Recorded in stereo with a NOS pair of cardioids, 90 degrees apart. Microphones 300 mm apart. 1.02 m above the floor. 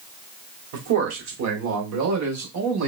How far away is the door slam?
No door slam in this recording.